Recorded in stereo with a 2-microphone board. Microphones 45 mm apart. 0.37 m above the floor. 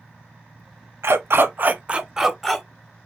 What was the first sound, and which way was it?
A dog barking, 70° right (ahead or behind).